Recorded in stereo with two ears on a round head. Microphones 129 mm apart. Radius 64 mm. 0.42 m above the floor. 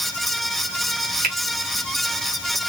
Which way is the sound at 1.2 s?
60° right (ahead or behind).